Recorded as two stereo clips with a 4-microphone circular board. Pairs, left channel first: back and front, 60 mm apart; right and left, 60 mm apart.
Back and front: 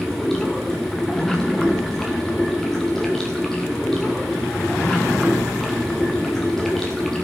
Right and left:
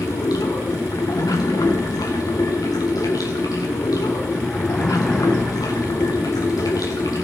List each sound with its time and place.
0.0 s running water: 95° right, 2.0 m